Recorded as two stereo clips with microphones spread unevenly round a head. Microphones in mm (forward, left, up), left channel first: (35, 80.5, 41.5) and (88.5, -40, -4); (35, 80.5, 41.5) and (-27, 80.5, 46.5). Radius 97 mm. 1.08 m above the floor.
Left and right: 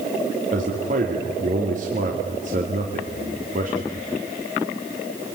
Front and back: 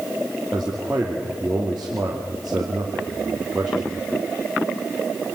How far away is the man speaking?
About 2.5 m.